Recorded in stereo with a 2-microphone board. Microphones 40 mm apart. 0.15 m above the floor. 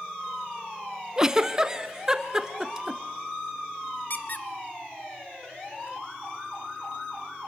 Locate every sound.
1.2 s a giggle: 15° right (ahead or behind), 0.7 m
4.1 s a squeak: 50° left (ahead or behind), 1.0 m